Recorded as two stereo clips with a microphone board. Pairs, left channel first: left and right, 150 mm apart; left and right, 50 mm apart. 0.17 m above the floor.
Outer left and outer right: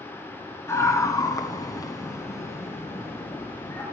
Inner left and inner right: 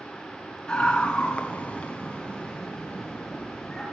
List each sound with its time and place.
0.7 s a scream: 20° left (ahead or behind), 2.5 m; by 3.8 s 10° left (ahead or behind), 4 m